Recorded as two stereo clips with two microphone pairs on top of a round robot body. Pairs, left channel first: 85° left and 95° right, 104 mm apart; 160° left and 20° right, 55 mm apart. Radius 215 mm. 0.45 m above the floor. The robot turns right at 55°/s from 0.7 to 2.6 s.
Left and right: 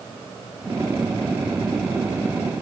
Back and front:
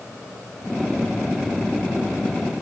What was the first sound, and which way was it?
Only background noise.